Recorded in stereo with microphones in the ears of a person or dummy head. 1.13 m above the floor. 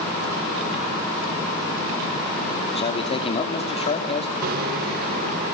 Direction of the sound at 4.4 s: 50° right (ahead or behind).